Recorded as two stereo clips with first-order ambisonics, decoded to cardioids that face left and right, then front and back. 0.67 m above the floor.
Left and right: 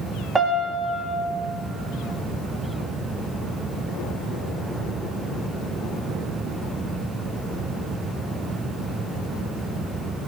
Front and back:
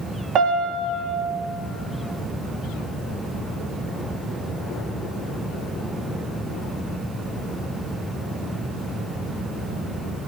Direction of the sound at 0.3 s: 160° right.